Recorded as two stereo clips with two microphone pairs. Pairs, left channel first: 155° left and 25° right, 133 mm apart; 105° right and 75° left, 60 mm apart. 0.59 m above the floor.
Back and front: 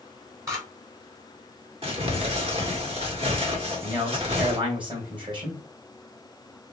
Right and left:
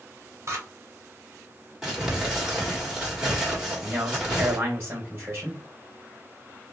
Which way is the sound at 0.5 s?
40° left.